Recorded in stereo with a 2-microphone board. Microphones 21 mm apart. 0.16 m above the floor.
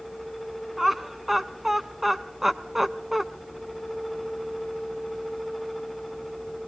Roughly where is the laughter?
Centre.